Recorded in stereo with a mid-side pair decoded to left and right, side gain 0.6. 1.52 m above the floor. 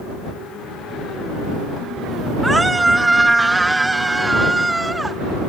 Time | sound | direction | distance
2.4 | a scream | 10° right | ?